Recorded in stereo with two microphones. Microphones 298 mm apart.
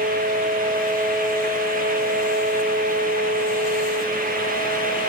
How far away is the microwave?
I don't hear a microwave.